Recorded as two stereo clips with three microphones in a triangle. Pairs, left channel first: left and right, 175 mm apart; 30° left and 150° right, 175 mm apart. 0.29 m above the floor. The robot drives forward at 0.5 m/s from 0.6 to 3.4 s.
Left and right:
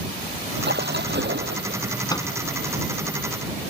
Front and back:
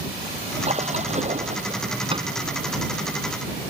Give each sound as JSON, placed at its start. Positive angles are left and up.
{"t": 0.6, "sound": "a splash", "azimuth_deg": -100}
{"t": 2.1, "sound": "a microwave", "azimuth_deg": 155}